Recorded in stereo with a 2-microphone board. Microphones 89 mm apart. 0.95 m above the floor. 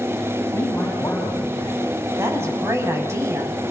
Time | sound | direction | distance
0.5 | a man speaking | 20° left (ahead or behind) | 7 m
2.2 | a woman speaking | 30° right (ahead or behind) | 7 m